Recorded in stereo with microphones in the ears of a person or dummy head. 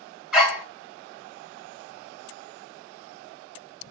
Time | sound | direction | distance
0.3 | a dog barking | centre (ahead or behind) | 2.5 m